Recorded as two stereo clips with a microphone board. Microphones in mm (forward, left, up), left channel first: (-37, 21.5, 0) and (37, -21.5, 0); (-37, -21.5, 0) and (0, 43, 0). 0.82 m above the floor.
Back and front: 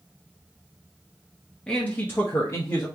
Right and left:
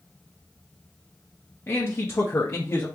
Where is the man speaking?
140° right, 0.7 m; by 2.9 s 170° right, 1.2 m.